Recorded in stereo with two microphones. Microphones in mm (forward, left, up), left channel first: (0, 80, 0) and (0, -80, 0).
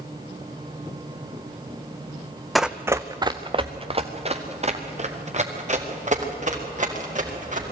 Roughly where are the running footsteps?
Centre.